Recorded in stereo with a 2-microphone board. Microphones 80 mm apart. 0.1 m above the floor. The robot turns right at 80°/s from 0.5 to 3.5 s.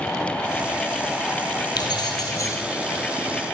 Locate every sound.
1.8 s keys jangling: 75° left, 2.5 m; by 2.6 s 140° left, 2.5 m